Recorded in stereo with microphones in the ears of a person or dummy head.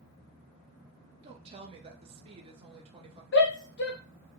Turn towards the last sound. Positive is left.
turn(degrees=55)  # may be behind; listen again after turning